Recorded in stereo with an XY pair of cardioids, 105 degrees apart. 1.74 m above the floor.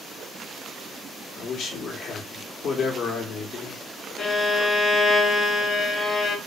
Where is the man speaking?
60° left, 0.9 m.